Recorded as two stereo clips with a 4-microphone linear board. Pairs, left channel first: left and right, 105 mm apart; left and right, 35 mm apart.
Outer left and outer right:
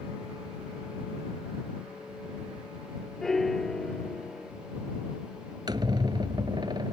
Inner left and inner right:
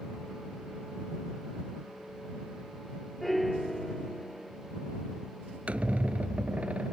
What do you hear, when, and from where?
3.2 s a piano: 5° left (ahead or behind)
5.7 s a squeak: 45° right (ahead or behind)